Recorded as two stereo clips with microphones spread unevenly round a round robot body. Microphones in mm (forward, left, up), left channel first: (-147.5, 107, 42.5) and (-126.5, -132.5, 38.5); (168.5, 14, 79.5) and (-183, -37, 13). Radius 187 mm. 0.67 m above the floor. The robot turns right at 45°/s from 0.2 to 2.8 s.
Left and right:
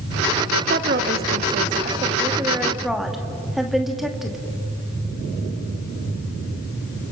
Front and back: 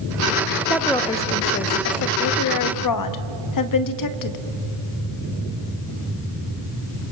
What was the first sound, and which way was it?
A woman speaking, 90° right.